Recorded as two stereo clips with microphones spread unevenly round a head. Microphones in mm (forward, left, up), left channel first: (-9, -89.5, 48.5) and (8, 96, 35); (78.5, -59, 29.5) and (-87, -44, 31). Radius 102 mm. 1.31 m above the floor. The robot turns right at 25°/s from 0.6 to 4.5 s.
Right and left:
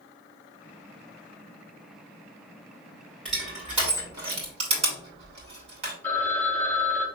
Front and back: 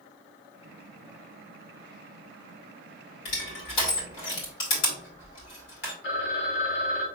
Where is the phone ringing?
15° right, 1.4 m.